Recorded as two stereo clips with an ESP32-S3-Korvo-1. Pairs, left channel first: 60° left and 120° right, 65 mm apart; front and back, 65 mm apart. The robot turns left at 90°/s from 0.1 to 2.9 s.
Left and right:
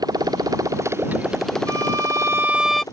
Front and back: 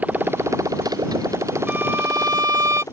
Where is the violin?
115° right; by 2.8 s 145° left.